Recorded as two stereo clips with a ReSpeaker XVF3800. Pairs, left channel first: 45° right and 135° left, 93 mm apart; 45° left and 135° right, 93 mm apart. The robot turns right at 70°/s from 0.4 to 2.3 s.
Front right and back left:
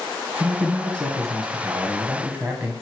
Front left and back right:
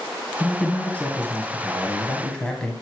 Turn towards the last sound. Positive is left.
turn(degrees=105)